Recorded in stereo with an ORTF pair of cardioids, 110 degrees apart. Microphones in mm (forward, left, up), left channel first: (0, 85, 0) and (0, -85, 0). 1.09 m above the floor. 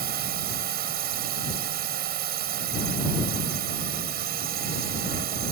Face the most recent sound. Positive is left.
turn(degrees=-65)